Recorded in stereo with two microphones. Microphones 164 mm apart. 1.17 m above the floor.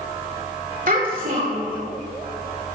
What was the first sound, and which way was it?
A child speaking, 60° right (ahead or behind).